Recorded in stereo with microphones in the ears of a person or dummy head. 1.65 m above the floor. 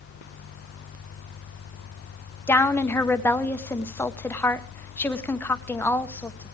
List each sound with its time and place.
2.5 s a woman speaking: 10° left (ahead or behind), 1.1 m